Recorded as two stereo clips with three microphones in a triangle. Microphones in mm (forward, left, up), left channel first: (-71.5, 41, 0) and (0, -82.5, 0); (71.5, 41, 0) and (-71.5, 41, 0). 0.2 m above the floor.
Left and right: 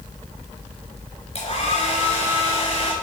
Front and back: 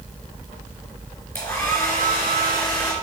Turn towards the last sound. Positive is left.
turn(degrees=80)